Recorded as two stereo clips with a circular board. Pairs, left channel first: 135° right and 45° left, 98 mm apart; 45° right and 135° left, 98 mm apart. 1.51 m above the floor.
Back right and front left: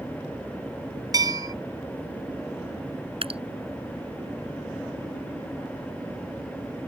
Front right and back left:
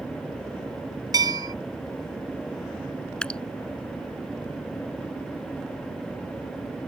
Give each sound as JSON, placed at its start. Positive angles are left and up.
{"t": 1.1, "sound": "a bell", "azimuth_deg": 90}
{"t": 3.2, "sound": "dripping", "azimuth_deg": 35}